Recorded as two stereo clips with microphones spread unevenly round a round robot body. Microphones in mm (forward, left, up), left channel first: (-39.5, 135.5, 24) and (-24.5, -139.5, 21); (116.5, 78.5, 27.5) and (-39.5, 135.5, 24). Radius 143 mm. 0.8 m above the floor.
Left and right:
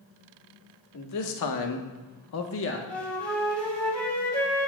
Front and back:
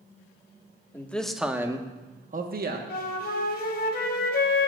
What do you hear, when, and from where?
0.9 s a man speaking: 60° left, 1.4 m; by 2.8 s 145° left, 1.2 m
2.9 s a flute: 10° left, 2 m